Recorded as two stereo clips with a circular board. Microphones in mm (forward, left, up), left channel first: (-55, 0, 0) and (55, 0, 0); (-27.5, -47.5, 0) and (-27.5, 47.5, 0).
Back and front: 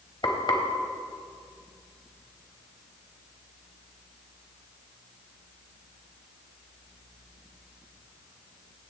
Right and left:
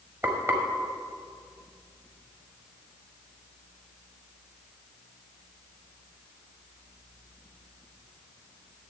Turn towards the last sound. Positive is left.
turn(degrees=150)